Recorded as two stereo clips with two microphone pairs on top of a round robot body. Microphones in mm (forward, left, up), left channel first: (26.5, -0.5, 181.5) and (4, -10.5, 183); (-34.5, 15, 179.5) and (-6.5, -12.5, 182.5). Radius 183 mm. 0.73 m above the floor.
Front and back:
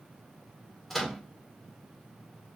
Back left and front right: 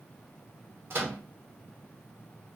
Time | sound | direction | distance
0.9 | a microwave | 50° right | 1.2 m